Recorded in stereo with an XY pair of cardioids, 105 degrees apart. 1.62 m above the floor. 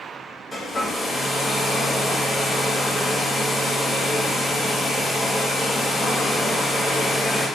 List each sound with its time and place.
0.5 s a hair dryer: 25° left, 1.8 m